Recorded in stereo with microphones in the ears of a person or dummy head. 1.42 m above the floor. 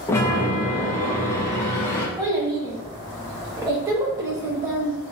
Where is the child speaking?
15° right (ahead or behind), 0.9 m.